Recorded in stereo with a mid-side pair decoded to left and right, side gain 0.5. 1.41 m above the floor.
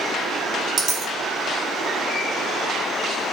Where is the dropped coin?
45° right, 3 m.